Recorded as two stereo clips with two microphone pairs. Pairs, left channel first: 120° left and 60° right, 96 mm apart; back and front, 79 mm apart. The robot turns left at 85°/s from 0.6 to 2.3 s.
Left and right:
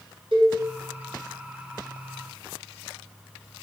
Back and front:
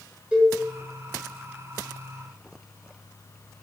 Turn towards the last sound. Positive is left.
turn(degrees=140)